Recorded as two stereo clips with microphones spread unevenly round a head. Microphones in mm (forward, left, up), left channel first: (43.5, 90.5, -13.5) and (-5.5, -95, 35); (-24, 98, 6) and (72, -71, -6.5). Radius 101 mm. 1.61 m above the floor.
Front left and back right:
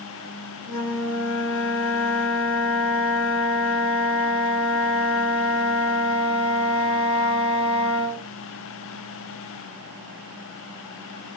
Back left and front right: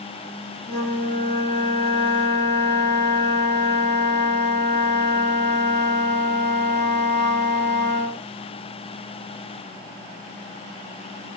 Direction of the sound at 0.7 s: 100° left.